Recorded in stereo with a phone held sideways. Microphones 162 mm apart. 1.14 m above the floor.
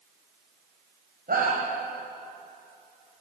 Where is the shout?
70° right (ahead or behind), 5 m.